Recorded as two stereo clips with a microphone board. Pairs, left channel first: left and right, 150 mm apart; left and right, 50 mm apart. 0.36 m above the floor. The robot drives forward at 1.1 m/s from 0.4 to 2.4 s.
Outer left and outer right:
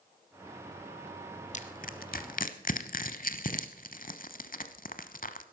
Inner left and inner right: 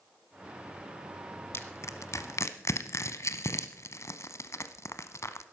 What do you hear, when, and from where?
1.5 s crushing: 55° left (ahead or behind), 1.2 m; by 5.4 s 70° left (ahead or behind), 1.0 m